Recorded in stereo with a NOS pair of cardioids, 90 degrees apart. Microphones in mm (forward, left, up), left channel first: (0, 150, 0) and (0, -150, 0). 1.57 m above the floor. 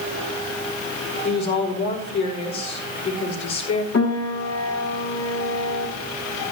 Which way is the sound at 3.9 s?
55° left.